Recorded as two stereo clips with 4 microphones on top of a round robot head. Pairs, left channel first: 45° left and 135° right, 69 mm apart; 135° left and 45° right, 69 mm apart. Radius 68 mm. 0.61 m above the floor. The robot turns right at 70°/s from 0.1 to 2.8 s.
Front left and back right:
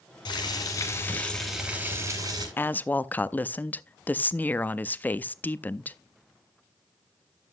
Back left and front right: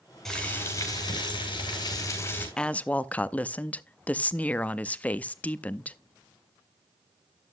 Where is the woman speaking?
65° left, 0.6 m; by 6.0 s 85° left, 0.6 m.